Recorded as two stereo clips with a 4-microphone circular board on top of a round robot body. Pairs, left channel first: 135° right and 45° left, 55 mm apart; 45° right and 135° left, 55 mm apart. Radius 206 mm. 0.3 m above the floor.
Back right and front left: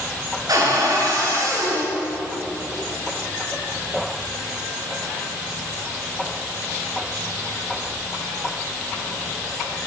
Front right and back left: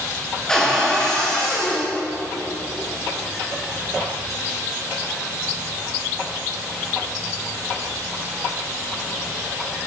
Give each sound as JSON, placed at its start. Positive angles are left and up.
{"t": 0.5, "sound": "a cupboard door", "azimuth_deg": 35, "distance_m": 8.5}